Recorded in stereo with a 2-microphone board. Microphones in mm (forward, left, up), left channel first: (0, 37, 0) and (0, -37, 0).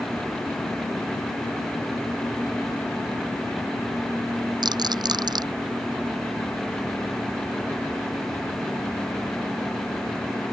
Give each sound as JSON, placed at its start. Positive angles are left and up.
{"t": 4.6, "sound": "a rattle", "side_deg": -70}